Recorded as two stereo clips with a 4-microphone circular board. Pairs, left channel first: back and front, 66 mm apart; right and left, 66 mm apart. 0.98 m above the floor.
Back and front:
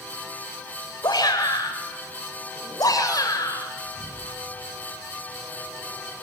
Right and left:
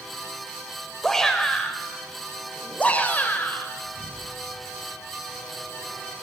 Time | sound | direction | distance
1.0 | a shout | 175° right | 4 m
3.8 | an explosion | 35° right | 9 m